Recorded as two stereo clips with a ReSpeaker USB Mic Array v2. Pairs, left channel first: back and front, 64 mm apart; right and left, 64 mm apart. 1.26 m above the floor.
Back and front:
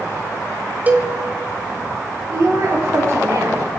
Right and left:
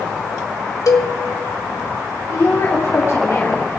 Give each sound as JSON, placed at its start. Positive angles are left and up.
{"t": 0.9, "sound": "a cowbell", "azimuth_deg": -65, "distance_m": 2.0}
{"t": 2.3, "sound": "a woman speaking", "azimuth_deg": -45, "distance_m": 3.0}